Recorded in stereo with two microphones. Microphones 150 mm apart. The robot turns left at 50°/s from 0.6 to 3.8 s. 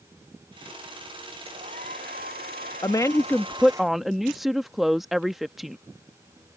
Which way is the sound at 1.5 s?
45° right.